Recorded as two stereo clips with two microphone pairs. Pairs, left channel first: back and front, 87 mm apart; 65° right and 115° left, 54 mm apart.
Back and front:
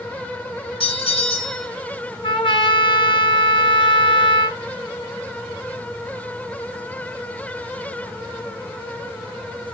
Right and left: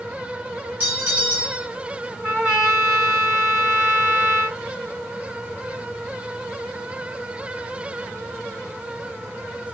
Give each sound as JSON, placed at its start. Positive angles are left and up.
{"t": 0.8, "sound": "a bell", "azimuth_deg": 175, "distance_m": 2.0}
{"t": 2.2, "sound": "a trumpet", "azimuth_deg": 180, "distance_m": 2.0}